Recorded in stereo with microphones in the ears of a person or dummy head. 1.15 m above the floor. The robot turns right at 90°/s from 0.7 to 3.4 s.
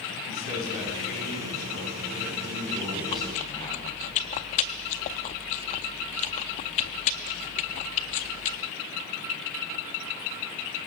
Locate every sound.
0.3 s a man speaking: 140° left, 9.5 m; by 4.1 s 20° left, 9.5 m
3.1 s chewing: 30° left (ahead or behind), 0.6 m